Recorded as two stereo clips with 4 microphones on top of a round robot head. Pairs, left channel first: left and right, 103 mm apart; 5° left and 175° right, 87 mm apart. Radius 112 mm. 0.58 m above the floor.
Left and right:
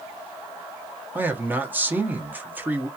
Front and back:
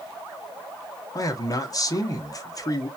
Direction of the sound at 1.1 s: 20° right.